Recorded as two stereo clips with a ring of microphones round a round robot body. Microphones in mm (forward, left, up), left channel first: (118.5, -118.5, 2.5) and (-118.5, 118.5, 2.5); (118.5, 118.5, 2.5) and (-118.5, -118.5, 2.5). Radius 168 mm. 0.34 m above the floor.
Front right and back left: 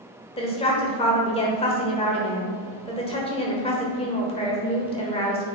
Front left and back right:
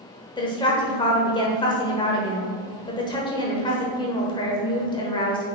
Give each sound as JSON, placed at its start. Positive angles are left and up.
{"t": 0.4, "sound": "a woman speaking", "azimuth_deg": -5, "distance_m": 1.1}